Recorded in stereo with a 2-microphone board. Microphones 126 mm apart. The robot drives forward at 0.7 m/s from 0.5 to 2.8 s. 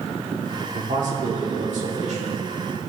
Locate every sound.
0.7 s a man speaking: 80° right, 1.7 m; by 2.3 s 60° right (ahead or behind), 1.9 m